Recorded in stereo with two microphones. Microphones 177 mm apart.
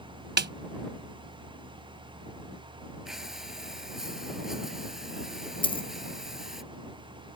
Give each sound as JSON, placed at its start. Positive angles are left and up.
{"t": 0.4, "sound": "a snare drum", "side_deg": -75}
{"t": 3.0, "sound": "breathing", "side_deg": -5}
{"t": 5.6, "sound": "a dropped coin", "side_deg": 30}